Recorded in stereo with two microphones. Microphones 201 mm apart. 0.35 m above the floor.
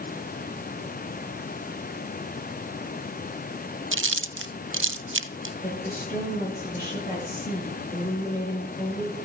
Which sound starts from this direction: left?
A woman speaking, at 5.6 s.